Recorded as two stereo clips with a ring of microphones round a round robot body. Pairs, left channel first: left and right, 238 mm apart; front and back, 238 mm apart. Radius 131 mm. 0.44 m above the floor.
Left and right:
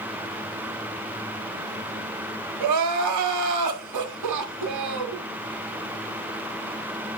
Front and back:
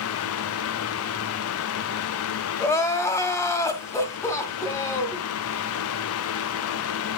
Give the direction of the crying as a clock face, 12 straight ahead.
3 o'clock.